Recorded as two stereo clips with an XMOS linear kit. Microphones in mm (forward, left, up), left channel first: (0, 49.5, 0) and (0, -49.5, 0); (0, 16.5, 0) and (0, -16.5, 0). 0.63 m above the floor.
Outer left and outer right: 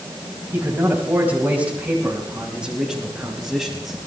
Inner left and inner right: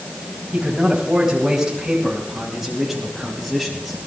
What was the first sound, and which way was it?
A man speaking, 25° right (ahead or behind).